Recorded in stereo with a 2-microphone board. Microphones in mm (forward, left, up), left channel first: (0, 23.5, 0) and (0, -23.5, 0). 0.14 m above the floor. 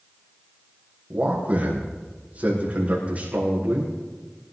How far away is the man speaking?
About 5.5 m.